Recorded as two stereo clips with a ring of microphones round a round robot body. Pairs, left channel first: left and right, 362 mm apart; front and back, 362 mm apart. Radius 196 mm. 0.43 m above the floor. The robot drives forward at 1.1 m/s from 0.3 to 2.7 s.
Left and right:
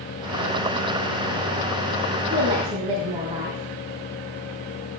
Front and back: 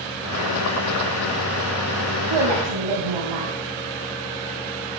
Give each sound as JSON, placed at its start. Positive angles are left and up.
{"t": 2.3, "sound": "a woman speaking", "azimuth_deg": -165, "distance_m": 3.0}